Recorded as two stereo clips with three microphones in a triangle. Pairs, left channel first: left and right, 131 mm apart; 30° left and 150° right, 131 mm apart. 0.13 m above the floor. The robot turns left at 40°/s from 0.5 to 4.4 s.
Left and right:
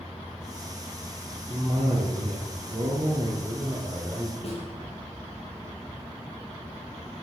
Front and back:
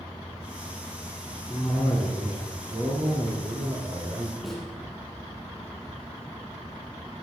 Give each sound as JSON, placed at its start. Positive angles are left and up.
{"t": 1.5, "sound": "a cough", "azimuth_deg": -55, "distance_m": 2.5}
{"t": 4.4, "sound": "a snare drum", "azimuth_deg": 120, "distance_m": 4.5}